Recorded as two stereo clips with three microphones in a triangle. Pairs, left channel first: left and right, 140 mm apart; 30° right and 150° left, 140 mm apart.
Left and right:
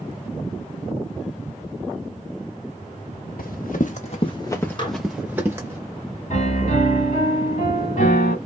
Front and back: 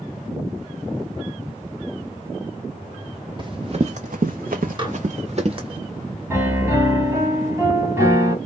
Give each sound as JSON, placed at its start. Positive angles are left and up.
{"t": 3.4, "sound": "running footsteps", "azimuth_deg": 100, "distance_m": 1.0}
{"t": 4.8, "sound": "dishes clattering", "azimuth_deg": 120, "distance_m": 1.2}
{"t": 6.3, "sound": "a piano", "azimuth_deg": 80, "distance_m": 1.3}